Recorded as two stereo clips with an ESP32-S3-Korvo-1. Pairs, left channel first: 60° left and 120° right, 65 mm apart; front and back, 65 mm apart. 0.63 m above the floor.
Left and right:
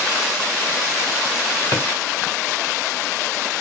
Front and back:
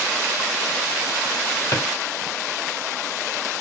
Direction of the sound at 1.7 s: 20° left.